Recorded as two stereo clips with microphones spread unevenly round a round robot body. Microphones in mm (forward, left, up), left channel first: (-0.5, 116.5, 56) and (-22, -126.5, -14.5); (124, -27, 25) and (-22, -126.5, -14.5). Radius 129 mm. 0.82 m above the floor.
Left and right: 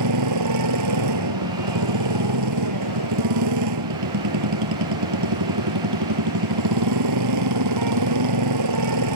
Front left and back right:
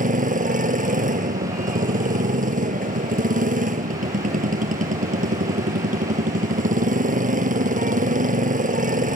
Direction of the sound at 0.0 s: 105° right.